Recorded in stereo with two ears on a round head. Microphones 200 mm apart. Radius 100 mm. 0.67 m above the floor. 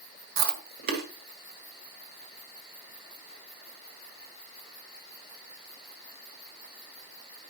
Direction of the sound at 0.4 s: 45° right (ahead or behind).